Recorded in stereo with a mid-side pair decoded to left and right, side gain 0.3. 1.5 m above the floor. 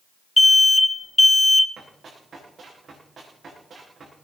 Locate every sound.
0.4 s an alarm: 20° left, 1.0 m
1.8 s running footsteps: 65° right, 7 m